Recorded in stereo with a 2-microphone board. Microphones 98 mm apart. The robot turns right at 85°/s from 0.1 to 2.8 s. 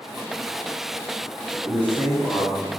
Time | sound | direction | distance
1.6 | a man speaking | 20° right (ahead or behind) | 1.2 m